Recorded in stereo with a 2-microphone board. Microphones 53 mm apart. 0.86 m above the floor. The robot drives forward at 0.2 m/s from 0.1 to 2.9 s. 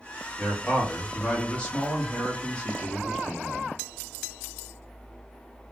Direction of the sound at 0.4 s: 25° left (ahead or behind).